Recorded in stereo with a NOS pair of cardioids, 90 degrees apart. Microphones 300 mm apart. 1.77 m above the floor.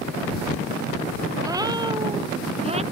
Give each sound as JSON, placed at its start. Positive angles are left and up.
{"t": 1.4, "sound": "a cat meowing", "azimuth_deg": -10}